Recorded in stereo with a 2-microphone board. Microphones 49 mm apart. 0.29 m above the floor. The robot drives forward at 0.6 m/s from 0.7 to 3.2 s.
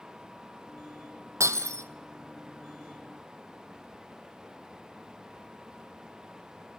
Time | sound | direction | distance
1.4 | breaking glass | 85° right | 1.7 m